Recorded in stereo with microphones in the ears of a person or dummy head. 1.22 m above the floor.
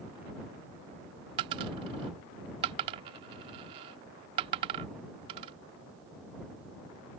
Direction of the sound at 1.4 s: 25° right (ahead or behind).